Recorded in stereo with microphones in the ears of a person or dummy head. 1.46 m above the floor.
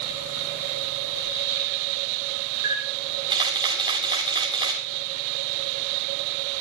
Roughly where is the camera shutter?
Right.